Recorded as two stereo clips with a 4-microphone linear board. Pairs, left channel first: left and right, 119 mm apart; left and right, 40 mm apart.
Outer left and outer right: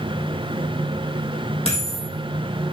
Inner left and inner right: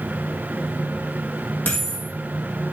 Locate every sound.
1.6 s a dropped coin: 55° left (ahead or behind), 4.5 m